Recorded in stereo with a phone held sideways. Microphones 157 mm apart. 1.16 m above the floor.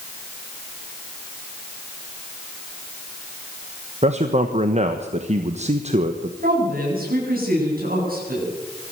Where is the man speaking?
45° right (ahead or behind), 1.2 m.